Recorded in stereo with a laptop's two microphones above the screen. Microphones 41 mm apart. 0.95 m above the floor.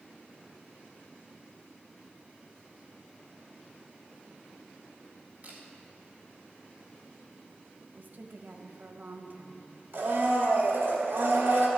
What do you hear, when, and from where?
5.4 s a camera shutter: 40° right (ahead or behind), 1.8 m
7.9 s a woman speaking: 50° right (ahead or behind), 1.1 m
9.9 s a blender: 65° right (ahead or behind), 2 m